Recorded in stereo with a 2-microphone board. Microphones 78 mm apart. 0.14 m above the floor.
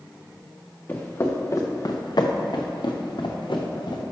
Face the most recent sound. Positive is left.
turn(degrees=70)  # may be behind; listen again after turning